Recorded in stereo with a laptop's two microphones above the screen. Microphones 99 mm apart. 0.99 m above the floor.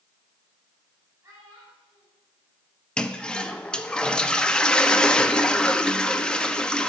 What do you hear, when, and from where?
1.2 s a child speaking: 30° right (ahead or behind), 4 m
3.0 s a toilet flushing: 10° left (ahead or behind), 0.6 m